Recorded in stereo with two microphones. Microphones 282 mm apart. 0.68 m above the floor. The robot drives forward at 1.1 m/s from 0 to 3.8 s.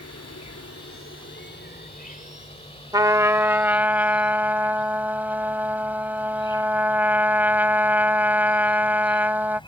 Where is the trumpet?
15° right (ahead or behind); by 9.6 s 5° right (ahead or behind).